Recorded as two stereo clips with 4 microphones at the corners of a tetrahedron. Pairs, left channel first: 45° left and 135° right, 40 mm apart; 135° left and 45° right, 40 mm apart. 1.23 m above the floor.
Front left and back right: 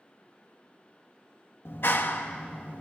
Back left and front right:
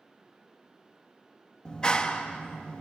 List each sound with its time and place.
1.6 s a clap: 65° left, 1.6 m